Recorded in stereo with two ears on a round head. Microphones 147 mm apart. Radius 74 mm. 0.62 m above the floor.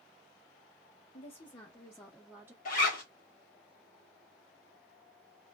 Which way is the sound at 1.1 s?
35° left (ahead or behind).